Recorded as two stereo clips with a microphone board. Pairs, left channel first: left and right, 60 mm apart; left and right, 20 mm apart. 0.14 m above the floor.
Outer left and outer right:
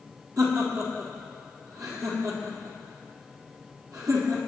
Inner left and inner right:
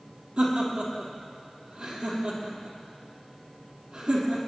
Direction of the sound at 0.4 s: 65° right (ahead or behind).